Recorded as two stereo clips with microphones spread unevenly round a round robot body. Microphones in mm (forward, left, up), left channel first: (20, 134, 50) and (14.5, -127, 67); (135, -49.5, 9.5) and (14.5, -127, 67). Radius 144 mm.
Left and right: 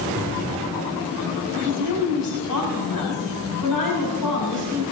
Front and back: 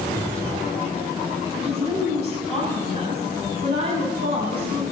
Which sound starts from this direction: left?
A woman speaking, at 1.6 s.